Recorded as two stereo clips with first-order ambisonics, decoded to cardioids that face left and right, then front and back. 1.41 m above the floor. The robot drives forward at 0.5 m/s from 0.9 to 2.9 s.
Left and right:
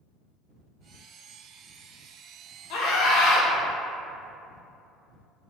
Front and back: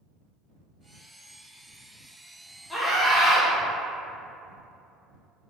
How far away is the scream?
About 1.3 m.